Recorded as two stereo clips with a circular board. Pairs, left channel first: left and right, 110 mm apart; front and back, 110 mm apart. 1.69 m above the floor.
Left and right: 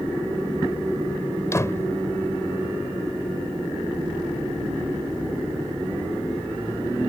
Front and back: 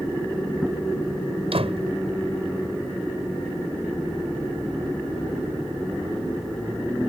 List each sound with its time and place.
1.5 s a door slam: 155° left